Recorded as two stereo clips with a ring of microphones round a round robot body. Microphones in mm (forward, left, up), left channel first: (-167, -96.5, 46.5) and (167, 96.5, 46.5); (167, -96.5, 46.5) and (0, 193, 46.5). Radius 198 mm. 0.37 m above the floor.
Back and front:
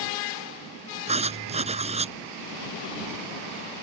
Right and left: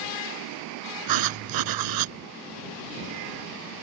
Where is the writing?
105° left.